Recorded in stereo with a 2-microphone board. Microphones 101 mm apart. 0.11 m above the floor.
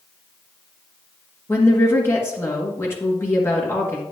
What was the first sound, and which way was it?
A woman speaking, 25° left (ahead or behind).